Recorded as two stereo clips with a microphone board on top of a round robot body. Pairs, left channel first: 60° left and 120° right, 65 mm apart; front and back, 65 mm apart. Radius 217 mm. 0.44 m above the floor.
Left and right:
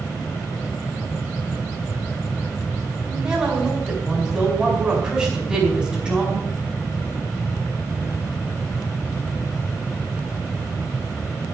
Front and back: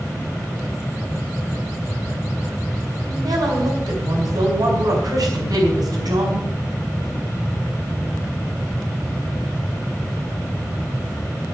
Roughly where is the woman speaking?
Behind.